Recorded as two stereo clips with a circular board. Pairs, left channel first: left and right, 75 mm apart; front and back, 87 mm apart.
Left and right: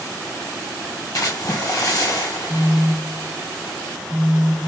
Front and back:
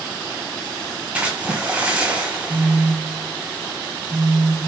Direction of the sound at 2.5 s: 170° left.